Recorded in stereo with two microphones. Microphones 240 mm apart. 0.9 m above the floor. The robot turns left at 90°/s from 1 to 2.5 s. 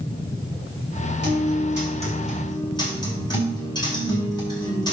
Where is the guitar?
85° right, 4.5 m; by 4.9 s 160° left, 4.5 m.